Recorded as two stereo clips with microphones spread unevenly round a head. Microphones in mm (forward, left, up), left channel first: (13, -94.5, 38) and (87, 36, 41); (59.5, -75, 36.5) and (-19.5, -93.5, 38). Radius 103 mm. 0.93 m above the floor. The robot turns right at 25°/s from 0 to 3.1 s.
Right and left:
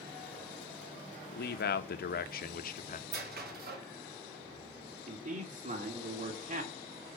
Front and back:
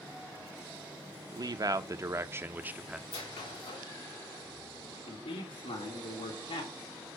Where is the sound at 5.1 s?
25° left, 1.9 m.